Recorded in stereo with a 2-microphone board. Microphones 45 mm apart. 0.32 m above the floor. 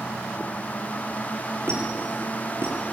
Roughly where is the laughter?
No laughter in this recording.